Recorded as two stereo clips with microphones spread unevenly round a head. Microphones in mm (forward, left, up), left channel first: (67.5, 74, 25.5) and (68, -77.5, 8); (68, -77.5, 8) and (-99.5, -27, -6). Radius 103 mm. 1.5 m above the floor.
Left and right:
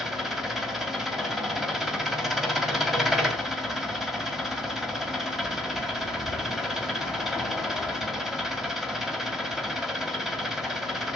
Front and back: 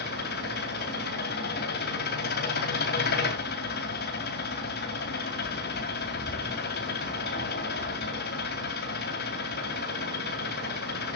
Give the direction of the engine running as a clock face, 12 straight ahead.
12 o'clock.